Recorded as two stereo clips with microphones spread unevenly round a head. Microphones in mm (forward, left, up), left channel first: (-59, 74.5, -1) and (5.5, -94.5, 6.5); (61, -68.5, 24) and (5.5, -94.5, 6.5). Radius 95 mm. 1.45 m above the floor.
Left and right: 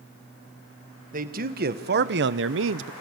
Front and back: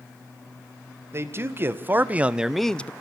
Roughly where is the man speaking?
Right.